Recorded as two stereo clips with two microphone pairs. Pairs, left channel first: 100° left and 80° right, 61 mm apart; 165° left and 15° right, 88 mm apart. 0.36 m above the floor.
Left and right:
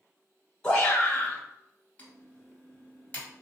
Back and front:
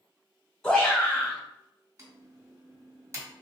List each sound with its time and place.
0.6 s a shout: 100° left, 1.1 m
2.0 s typing on a keyboard: 35° left, 1.5 m